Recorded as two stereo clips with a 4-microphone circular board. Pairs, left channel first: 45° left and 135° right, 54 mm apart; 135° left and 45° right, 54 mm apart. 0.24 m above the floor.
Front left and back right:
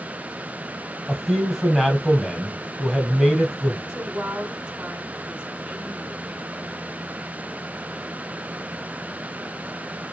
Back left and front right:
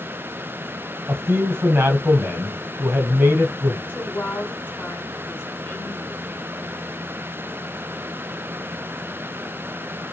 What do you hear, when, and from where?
1.1 s a man speaking: 45° right, 1.3 m
3.9 s a woman speaking: 160° left, 1.3 m